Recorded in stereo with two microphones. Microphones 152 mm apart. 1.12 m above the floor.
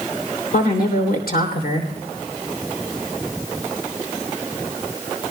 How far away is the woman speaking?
About 3 m.